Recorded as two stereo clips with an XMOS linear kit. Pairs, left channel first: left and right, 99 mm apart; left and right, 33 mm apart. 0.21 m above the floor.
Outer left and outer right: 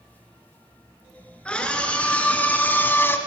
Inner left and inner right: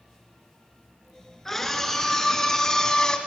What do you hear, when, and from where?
1.4 s a scream: 10° left (ahead or behind), 4 m; by 3.2 s 20° left (ahead or behind), 1.9 m